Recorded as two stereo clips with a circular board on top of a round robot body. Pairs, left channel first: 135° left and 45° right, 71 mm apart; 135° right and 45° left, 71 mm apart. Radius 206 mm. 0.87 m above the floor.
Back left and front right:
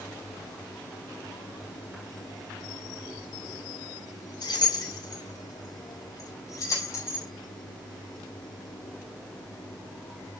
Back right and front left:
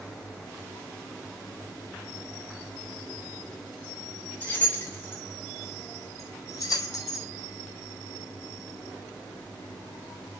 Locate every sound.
4.4 s keys jangling: 160° left, 5.5 m; by 7.3 s 170° right, 4.5 m